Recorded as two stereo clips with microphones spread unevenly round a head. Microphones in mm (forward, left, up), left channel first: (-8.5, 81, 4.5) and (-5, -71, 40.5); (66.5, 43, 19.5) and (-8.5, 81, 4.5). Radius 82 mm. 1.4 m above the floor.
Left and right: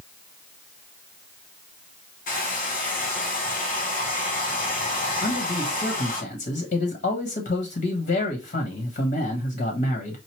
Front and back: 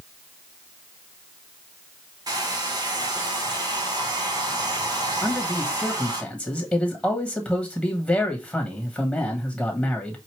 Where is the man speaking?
50° left, 1.3 m.